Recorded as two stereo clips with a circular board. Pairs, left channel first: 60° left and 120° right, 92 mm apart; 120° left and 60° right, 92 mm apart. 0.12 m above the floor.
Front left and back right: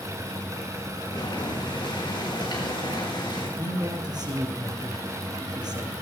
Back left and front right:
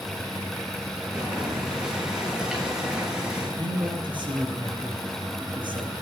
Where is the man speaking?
85° right, 4 m.